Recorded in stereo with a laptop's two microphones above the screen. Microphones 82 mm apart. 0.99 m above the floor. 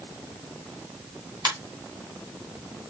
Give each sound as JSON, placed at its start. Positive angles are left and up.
{"t": 1.4, "sound": "a ringtone", "side_deg": -60, "distance_m": 3.0}